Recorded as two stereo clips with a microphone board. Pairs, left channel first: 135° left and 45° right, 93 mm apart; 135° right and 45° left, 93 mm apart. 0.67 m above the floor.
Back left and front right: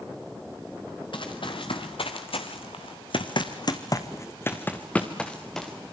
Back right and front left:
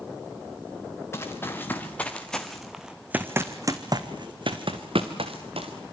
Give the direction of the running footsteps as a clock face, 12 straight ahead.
7 o'clock.